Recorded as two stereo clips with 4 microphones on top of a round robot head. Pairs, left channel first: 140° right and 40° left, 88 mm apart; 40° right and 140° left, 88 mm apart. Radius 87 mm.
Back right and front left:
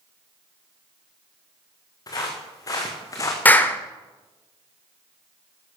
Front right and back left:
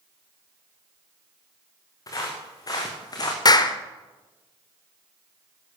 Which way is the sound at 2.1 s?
90° right.